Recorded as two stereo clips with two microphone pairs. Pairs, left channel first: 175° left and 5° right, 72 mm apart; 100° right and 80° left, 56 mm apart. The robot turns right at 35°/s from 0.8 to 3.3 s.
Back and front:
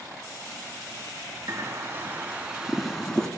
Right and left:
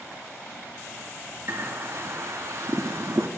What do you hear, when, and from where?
1.5 s a bird: 35° left, 0.6 m; by 3.3 s 100° left, 0.6 m